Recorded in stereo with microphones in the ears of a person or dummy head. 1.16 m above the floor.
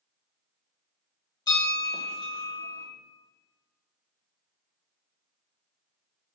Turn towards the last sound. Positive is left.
turn(degrees=20)  # may be behind; listen again after turning